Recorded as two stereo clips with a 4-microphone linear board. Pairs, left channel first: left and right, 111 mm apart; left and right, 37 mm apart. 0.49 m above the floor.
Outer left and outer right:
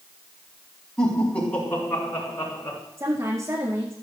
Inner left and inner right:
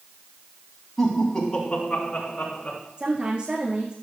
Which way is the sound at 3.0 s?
30° right (ahead or behind).